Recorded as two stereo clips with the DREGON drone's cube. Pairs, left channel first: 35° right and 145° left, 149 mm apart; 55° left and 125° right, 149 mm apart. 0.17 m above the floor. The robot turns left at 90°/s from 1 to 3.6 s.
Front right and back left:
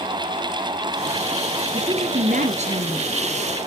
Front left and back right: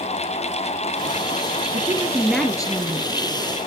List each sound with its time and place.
1.7 s a woman speaking: 160° right, 2.0 m; by 3.1 s 75° left, 2.0 m